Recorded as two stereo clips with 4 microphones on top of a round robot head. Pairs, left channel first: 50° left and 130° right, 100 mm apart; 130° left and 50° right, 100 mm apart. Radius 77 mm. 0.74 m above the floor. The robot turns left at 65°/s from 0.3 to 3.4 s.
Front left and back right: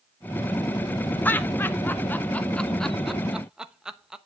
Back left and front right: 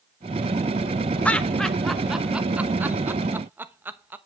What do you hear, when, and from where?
1.2 s laughter: 80° left, 1.0 m; by 4.2 s 60° right, 1.0 m